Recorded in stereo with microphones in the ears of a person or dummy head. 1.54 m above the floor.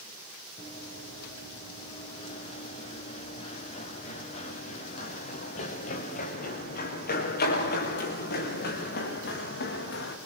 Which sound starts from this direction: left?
Running footsteps, at 0.6 s.